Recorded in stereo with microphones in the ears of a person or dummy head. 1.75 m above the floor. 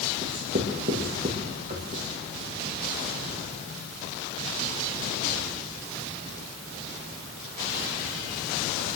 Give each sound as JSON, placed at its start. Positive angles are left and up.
{"t": 0.2, "sound": "writing", "side_deg": -40, "distance_m": 2.5}